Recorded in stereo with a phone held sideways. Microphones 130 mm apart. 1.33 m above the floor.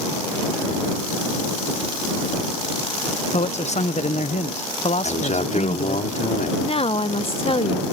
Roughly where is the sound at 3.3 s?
Left.